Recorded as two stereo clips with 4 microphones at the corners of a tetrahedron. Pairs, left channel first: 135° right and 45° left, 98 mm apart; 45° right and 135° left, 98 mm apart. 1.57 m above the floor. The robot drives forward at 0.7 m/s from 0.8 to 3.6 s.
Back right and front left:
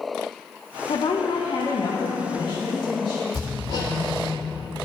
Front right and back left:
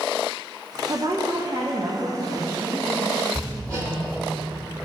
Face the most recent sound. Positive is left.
turn(degrees=-175)